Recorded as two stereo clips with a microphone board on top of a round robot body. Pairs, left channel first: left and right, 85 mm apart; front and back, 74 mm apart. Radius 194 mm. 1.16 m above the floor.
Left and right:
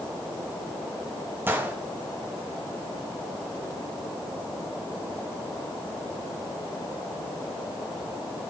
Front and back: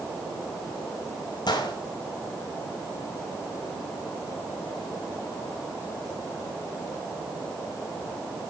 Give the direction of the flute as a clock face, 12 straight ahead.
I don't hear a flute.